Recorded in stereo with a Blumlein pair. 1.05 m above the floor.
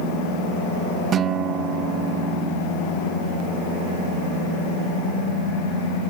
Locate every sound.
1.1 s a guitar: 25° right